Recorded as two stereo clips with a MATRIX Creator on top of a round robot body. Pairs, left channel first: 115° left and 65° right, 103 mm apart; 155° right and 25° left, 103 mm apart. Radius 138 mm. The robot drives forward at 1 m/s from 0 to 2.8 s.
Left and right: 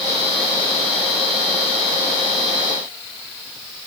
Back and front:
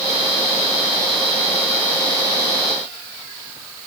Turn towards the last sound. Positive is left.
No sound to turn to.